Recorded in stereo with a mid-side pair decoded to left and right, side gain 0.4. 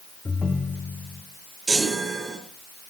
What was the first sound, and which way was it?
A ringtone, 30° left.